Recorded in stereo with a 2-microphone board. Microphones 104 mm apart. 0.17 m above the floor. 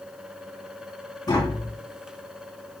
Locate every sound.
1.3 s tapping: 35° left (ahead or behind), 1.8 m